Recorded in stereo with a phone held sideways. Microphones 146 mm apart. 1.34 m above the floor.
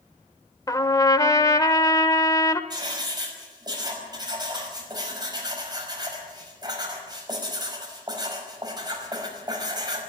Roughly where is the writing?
Right.